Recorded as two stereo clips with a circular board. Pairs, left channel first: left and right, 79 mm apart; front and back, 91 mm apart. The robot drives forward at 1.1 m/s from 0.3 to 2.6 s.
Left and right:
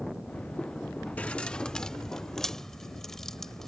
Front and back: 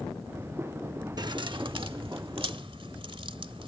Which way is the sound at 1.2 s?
155° left.